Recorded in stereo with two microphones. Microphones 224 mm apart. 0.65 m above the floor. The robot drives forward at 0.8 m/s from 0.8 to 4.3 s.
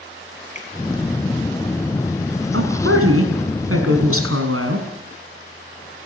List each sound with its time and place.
0.6 s a finger snap: 35° left (ahead or behind), 5.5 m
2.5 s a woman speaking: 75° right (ahead or behind), 5.5 m; by 4.9 s 85° right, 5.5 m